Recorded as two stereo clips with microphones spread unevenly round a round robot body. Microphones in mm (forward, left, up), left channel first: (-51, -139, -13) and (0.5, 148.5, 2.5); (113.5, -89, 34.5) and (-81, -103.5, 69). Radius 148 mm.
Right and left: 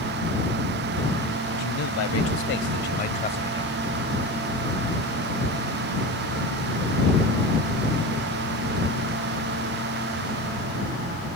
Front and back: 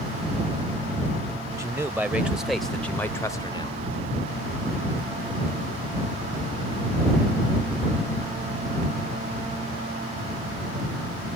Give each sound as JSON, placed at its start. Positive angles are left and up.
{"t": 1.6, "sound": "a man speaking", "azimuth_deg": -95}